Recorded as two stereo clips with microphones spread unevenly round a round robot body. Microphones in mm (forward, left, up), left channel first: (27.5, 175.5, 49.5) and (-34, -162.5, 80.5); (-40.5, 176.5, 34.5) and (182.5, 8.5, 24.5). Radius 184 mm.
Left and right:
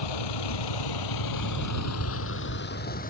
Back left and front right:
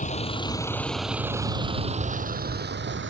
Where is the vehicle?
80° left; by 3.1 s 10° left.